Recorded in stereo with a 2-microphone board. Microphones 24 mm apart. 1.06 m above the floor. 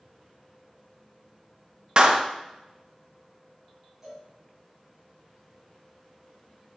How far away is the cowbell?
About 3.5 m.